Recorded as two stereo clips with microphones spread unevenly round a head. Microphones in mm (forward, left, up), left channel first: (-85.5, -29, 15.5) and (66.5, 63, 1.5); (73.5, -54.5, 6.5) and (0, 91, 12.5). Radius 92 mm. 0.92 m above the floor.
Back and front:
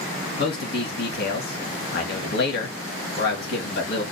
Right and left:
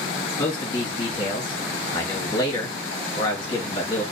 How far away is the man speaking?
About 1.5 m.